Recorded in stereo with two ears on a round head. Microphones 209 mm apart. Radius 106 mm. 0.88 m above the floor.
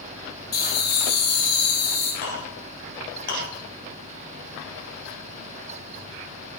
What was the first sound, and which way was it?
Laughter, 45° left (ahead or behind).